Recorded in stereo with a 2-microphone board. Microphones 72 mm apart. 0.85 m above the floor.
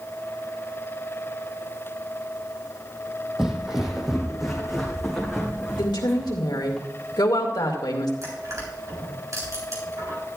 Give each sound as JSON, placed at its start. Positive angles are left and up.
{"t": 3.4, "sound": "footsteps", "side_deg": -10, "distance_m": 1.3}
{"t": 5.8, "sound": "a woman speaking", "side_deg": 80, "distance_m": 2.0}
{"t": 8.2, "sound": "crushing", "side_deg": -50, "distance_m": 4.0}